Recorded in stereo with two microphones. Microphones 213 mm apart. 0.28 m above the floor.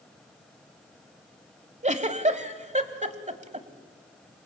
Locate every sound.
1.8 s a giggle: 35° right (ahead or behind), 1.0 m